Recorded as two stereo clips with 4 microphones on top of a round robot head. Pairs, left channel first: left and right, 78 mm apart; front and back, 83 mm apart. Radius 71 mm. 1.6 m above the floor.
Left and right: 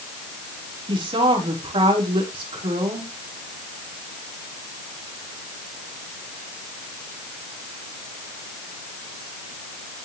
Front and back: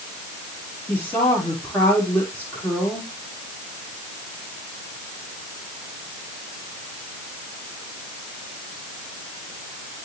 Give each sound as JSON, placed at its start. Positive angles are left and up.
{"t": 0.9, "sound": "a woman speaking", "azimuth_deg": -75, "distance_m": 5.0}